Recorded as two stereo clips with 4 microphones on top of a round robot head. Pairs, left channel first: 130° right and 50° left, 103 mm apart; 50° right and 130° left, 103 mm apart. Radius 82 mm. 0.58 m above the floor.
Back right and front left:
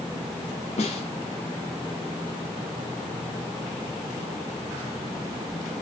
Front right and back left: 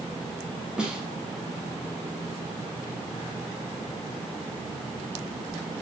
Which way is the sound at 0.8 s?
145° right.